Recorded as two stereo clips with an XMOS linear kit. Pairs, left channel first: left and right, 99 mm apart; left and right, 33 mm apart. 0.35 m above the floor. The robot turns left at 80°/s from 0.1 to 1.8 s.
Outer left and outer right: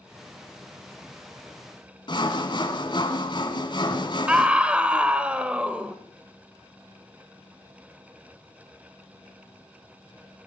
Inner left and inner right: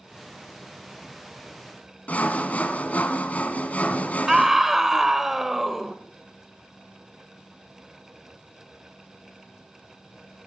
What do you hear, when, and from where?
2.1 s sawing: 45° left (ahead or behind), 1.6 m
4.3 s a scream: 10° right (ahead or behind), 1.3 m